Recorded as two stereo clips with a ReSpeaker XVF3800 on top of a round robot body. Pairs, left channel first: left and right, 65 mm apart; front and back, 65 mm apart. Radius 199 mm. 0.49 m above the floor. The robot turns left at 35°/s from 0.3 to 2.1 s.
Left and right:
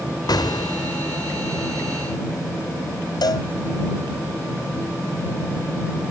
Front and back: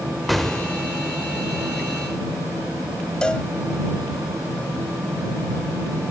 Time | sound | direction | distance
0.3 | an explosion | 90° left | ?
3.2 | a cowbell | 80° left | ?